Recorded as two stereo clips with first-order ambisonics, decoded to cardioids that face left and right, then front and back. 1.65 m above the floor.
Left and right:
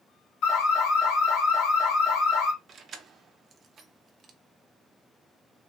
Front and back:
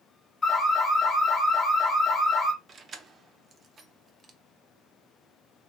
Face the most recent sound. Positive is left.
turn(degrees=-135)